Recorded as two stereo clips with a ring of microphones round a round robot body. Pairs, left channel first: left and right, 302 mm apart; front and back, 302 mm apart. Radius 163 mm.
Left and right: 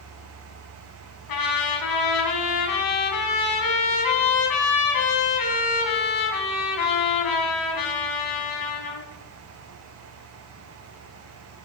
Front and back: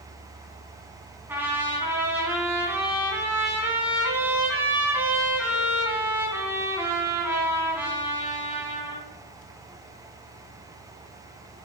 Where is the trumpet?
95° left, 2.5 m.